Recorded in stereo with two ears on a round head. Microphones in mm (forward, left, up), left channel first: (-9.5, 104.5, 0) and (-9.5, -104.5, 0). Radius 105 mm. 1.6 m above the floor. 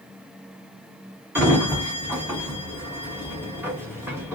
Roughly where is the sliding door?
Centre.